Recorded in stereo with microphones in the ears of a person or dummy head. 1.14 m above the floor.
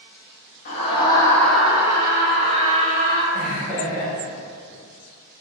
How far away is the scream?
About 0.7 m.